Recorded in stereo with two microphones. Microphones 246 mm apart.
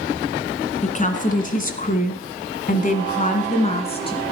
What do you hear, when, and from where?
0.8 s a woman speaking: 30° left (ahead or behind), 1.9 m; by 4.2 s 20° left (ahead or behind), 1.9 m